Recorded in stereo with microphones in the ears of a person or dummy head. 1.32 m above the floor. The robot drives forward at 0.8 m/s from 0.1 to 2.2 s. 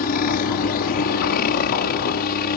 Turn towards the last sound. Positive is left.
turn(degrees=50)  # may be behind; listen again after turning